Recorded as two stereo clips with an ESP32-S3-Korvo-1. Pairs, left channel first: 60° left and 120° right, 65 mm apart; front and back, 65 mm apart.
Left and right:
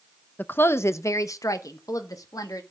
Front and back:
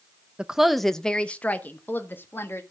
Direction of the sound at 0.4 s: 110° left.